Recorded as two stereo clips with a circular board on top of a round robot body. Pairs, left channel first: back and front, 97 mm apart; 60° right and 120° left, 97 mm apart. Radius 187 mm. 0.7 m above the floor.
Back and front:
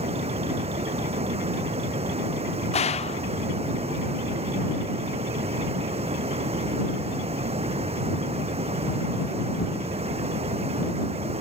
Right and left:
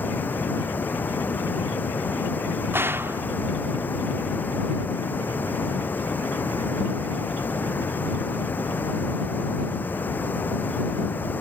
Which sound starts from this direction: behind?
A gunshot, at 2.7 s.